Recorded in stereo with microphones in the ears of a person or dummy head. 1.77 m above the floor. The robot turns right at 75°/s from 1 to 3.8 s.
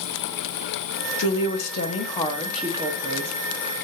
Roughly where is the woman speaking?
Left.